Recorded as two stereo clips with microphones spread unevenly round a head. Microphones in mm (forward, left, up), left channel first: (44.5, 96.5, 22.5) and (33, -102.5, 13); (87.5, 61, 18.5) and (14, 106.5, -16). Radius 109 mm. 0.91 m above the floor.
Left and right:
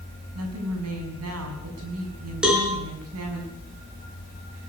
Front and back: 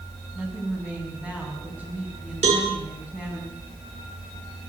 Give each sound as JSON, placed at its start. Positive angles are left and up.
{"t": 0.3, "sound": "a woman speaking", "azimuth_deg": -115, "distance_m": 6.5}
{"t": 2.4, "sound": "a cowbell", "azimuth_deg": 180, "distance_m": 3.5}